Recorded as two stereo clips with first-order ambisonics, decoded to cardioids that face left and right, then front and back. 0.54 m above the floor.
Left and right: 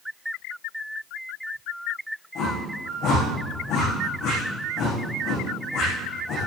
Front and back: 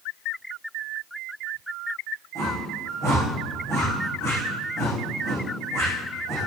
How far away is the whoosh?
About 8 m.